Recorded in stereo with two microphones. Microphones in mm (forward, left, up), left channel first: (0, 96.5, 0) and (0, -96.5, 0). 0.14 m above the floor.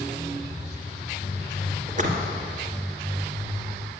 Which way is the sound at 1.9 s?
45° right (ahead or behind).